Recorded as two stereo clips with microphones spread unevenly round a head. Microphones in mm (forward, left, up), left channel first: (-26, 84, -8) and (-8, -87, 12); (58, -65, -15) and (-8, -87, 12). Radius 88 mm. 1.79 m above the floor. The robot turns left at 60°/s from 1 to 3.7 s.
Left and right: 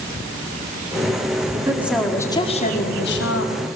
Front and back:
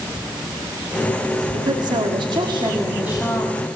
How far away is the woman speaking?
About 4.5 m.